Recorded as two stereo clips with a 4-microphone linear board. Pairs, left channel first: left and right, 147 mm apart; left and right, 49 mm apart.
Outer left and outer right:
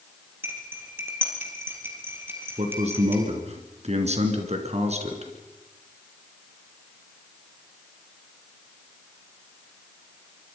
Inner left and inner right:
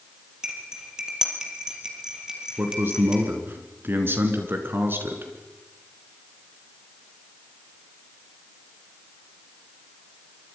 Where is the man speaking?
50° right (ahead or behind), 3.5 m.